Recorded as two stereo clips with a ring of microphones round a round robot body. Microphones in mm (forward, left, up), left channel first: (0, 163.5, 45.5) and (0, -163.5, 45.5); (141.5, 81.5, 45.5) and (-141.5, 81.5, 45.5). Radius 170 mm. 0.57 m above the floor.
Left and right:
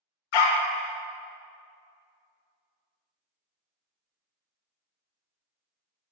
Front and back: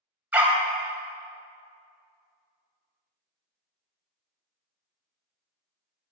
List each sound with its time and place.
0.3 s a dog barking: 95° left, 0.9 m